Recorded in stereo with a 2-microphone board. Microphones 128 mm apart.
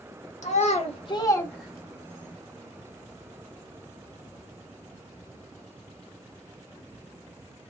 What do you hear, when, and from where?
0.4 s a child speaking: 65° left (ahead or behind), 0.9 m; by 2.3 s 30° right (ahead or behind), 1.0 m